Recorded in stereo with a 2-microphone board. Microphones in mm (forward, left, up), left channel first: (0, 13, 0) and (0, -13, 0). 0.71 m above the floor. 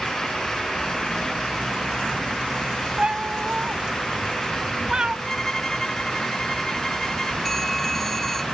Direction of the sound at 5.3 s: 20° left (ahead or behind).